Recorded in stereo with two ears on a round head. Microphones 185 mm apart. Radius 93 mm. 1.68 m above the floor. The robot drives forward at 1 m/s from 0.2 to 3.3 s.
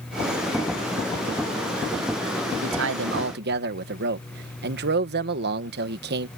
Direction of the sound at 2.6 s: 65° right (ahead or behind).